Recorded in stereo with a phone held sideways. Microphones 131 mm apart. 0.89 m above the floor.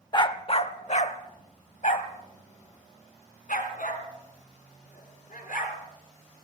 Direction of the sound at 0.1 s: 30° left (ahead or behind).